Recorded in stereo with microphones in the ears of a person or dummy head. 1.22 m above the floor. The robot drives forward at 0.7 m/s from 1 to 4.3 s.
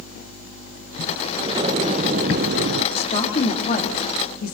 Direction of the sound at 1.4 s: 25° right (ahead or behind).